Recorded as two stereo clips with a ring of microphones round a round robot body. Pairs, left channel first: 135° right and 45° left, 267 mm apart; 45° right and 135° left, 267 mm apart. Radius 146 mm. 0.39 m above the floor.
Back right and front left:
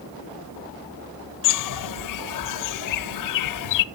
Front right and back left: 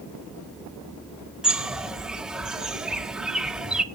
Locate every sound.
1.4 s a bird: 140° right, 0.6 m